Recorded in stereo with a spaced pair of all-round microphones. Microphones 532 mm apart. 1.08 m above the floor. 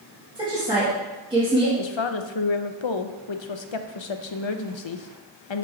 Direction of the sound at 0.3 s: 10° right (ahead or behind).